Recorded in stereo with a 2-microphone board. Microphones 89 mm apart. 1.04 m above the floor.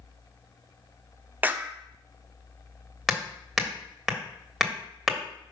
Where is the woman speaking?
No woman speaking in this recording.